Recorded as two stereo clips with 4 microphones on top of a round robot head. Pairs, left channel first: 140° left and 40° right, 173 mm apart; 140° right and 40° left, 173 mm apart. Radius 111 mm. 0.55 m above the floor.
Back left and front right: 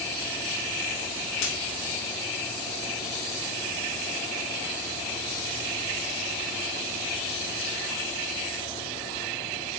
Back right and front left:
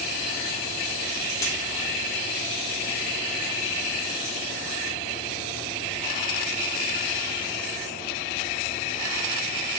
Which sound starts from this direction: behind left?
A dropped coin, at 1.4 s.